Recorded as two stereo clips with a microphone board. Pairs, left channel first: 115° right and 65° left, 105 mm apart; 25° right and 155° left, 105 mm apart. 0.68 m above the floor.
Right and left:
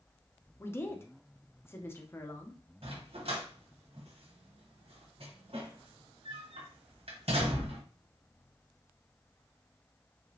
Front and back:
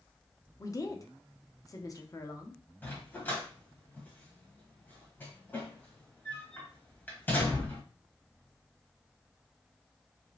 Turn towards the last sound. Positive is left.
turn(degrees=50)